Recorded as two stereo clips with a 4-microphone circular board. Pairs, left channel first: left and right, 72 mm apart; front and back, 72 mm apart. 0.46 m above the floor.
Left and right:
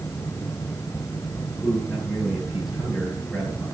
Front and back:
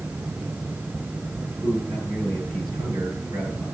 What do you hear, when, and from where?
1.6 s a man speaking: 175° right, 8 m